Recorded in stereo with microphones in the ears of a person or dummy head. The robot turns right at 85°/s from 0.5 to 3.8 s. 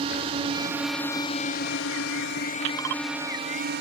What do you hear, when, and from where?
0.0 s a drone: 35° right; by 3.8 s 115° right